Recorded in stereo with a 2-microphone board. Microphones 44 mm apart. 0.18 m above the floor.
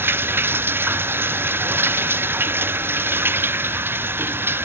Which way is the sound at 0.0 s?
55° right (ahead or behind).